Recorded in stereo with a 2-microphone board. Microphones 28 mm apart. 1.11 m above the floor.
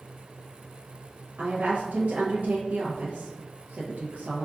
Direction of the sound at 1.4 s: 80° right.